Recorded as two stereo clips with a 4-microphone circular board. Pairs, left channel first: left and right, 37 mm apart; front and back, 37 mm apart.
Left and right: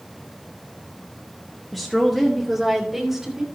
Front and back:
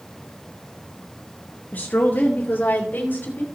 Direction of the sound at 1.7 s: Straight ahead.